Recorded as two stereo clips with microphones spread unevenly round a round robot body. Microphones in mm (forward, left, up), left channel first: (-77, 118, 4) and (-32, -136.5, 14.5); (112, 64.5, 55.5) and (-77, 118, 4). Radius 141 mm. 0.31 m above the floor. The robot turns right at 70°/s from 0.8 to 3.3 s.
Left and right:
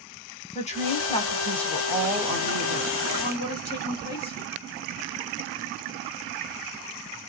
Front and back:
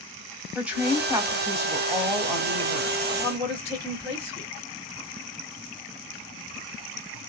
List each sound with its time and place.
0.6 s a woman speaking: 120° left, 1.0 m; by 3.0 s 90° right, 1.0 m
3.1 s a woman speaking: 65° left, 1.5 m; by 4.5 s 80° left, 1.5 m